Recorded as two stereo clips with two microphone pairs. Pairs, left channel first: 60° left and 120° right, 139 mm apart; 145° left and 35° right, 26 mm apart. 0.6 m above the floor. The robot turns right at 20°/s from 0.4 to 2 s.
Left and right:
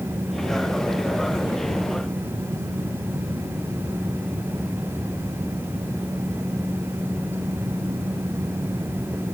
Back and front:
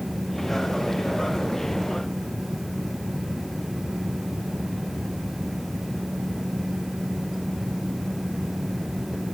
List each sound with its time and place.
Only background noise.